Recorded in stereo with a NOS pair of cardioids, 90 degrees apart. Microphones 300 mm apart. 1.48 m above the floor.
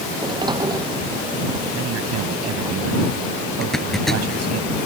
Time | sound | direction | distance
0.1 | a sliding door | 15° right | ?
1.7 | a man speaking | 60° right | ?
3.6 | a zipper | straight ahead | ?